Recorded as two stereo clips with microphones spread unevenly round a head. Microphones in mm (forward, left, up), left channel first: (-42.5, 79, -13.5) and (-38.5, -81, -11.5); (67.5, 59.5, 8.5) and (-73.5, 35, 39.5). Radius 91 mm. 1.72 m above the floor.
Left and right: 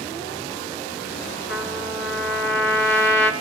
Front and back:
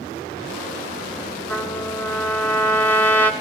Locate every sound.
1.5 s a trumpet: 85° left, 4 m